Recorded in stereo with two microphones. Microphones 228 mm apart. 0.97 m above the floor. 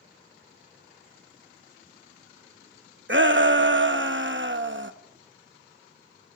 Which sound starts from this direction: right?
A shout, at 3.1 s.